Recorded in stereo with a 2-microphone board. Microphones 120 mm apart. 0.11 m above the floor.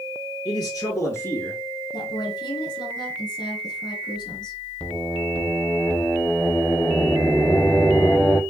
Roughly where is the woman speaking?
Left.